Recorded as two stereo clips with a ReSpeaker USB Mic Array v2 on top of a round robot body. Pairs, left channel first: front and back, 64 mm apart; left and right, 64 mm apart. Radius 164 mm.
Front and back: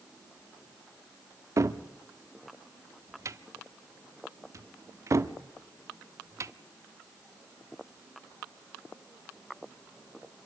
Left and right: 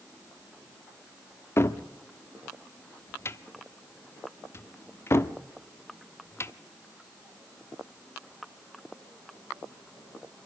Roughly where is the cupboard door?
Behind left.